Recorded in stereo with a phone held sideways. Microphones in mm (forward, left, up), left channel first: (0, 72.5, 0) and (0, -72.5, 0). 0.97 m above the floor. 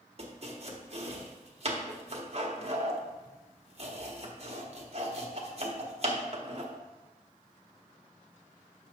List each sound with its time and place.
0.2 s chopping: 45° right (ahead or behind), 0.9 m